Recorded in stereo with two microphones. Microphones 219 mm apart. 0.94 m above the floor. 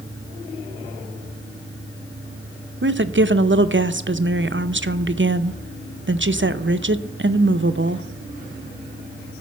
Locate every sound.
2.8 s a woman speaking: 60° right (ahead or behind), 0.5 m